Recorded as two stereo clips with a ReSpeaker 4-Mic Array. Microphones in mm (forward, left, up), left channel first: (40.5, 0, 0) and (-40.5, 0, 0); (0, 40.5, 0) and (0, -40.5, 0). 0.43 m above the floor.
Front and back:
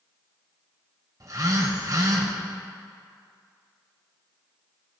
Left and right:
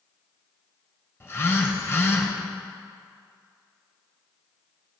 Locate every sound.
1.2 s a phone buzzing: 145° left, 1.3 m